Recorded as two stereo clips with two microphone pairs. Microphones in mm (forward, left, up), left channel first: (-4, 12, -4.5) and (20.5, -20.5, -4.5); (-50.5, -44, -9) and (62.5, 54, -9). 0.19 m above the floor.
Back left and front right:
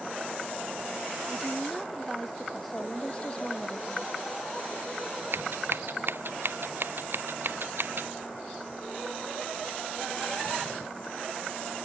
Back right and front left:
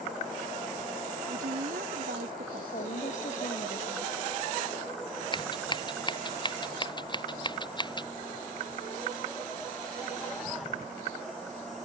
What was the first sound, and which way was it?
A woman speaking, 40° left.